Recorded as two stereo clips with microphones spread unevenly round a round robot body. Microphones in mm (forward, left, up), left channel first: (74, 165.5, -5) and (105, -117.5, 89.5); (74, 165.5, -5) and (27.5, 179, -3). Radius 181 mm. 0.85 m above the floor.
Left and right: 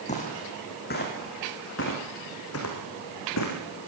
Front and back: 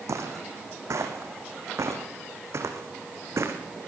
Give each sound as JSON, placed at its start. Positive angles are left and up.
{"t": 0.1, "sound": "footsteps", "azimuth_deg": 170, "distance_m": 3.0}